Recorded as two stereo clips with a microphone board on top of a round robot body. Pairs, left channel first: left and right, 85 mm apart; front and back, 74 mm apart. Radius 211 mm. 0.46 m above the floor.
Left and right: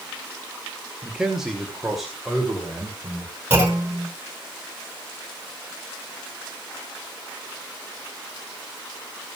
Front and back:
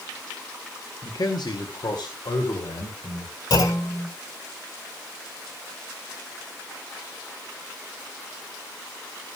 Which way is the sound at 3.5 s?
20° right.